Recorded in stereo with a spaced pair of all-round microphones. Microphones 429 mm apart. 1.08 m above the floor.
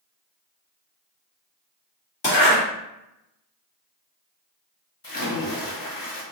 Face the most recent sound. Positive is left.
turn(degrees=50)  # may be behind; listen again after turning